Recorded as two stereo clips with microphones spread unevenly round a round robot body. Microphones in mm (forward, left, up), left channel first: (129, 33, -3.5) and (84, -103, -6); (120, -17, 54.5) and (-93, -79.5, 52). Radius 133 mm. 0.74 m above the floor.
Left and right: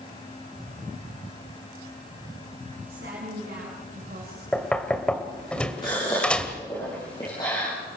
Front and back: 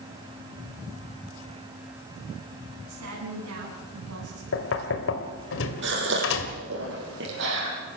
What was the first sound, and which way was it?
A woman speaking, 155° right.